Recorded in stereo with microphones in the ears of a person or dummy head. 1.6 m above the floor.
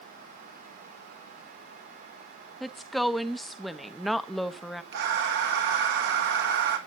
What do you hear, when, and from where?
2.6 s a woman speaking: centre (ahead or behind), 0.8 m
4.9 s breathing: 65° right (ahead or behind), 1.8 m